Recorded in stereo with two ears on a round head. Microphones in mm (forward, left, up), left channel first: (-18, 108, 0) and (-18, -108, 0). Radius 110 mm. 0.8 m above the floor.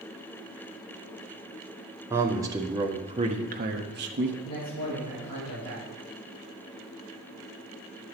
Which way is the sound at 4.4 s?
25° left (ahead or behind).